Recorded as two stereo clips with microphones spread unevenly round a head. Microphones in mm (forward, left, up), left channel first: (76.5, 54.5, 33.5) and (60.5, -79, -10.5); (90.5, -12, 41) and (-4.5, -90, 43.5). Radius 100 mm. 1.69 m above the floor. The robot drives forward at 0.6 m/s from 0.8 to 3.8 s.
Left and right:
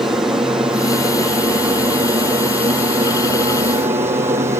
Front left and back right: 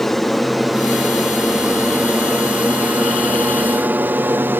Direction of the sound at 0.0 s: 45° right.